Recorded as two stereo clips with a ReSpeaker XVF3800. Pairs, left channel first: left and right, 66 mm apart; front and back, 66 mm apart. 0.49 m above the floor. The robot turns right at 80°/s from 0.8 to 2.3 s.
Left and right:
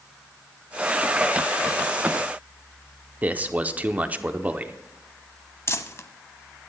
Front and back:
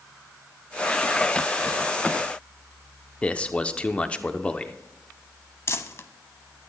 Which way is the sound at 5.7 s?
45° left.